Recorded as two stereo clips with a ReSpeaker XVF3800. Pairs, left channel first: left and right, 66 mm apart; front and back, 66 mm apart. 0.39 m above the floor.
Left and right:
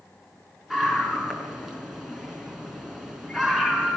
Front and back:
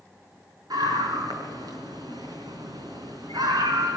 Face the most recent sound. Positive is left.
turn(degrees=-170)